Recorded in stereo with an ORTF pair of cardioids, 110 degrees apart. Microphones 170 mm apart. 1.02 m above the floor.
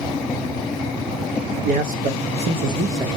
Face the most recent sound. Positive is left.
turn(degrees=-15)